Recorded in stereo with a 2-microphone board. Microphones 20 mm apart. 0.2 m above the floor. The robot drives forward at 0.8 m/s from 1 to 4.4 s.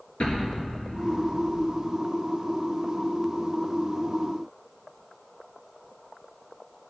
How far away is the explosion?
About 3.5 m.